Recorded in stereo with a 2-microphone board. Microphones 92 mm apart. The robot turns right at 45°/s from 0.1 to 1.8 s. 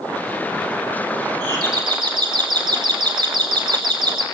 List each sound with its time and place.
1.4 s a doorbell: 50° right (ahead or behind), 2.5 m; by 4.2 s 55° right (ahead or behind), 2.5 m